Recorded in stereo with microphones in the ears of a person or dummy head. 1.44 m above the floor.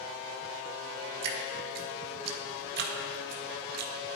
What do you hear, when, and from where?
1.2 s dripping: 60° right (ahead or behind), 1.6 m